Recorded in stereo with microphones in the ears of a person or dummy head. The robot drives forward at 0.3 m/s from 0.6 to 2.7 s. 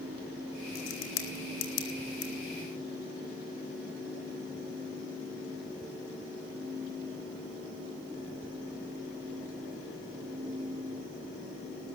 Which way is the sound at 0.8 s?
80° left.